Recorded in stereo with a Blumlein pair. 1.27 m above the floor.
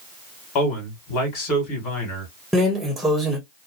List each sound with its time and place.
0.6 s a man speaking: 35° left, 1.8 m
2.5 s a drawer: 5° right, 1.1 m